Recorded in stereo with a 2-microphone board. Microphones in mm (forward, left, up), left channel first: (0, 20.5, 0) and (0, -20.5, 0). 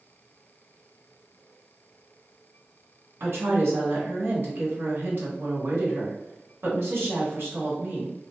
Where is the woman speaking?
70° right (ahead or behind), 1.4 m.